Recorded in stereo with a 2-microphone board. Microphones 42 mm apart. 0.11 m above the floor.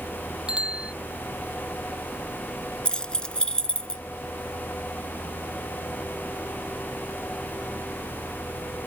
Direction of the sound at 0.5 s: 20° right (ahead or behind).